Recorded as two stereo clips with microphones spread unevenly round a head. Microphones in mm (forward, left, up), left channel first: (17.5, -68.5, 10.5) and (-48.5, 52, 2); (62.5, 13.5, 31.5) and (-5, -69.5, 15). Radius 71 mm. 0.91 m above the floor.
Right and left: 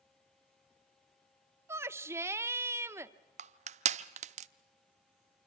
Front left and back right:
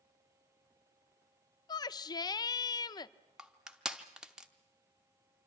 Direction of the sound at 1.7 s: 75° left.